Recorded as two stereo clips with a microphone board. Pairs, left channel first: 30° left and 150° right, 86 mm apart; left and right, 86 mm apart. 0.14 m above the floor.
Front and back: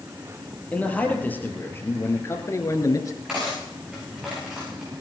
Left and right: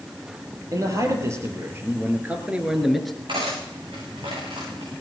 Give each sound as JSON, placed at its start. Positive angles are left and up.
{"t": 0.7, "sound": "a man speaking", "azimuth_deg": -45, "distance_m": 4.0}
{"t": 3.3, "sound": "cutlery clinking", "azimuth_deg": -70, "distance_m": 8.0}